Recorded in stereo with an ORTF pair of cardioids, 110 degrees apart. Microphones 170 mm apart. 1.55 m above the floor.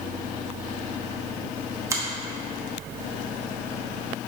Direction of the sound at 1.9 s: 20° right.